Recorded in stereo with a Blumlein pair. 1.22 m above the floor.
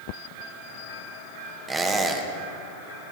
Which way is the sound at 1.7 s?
15° right.